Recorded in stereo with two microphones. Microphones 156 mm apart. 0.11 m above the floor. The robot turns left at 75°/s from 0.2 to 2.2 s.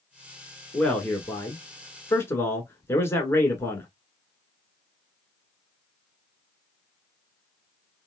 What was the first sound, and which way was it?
A man speaking, 5° left (ahead or behind).